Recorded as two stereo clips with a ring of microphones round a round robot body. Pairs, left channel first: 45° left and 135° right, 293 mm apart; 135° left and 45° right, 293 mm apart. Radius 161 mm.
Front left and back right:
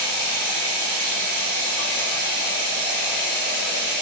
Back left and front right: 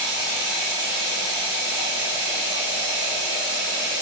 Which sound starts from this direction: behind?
Running water, at 0.0 s.